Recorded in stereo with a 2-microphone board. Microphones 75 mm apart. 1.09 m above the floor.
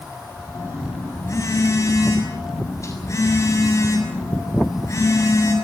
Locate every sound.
0.5 s a phone buzzing: 40° left (ahead or behind), 6.5 m